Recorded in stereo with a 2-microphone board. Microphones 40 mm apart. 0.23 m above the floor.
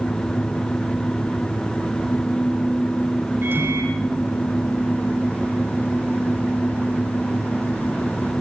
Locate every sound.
3.4 s a microwave: 65° right (ahead or behind), 8 m